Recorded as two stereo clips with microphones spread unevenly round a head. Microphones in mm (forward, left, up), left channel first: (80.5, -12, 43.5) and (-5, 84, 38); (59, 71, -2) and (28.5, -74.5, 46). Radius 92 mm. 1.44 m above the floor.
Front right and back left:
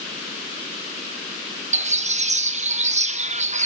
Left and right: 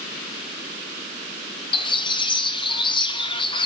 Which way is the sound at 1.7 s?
120° left.